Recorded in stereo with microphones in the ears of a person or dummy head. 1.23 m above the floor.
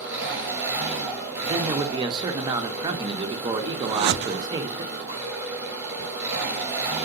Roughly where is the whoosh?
Right.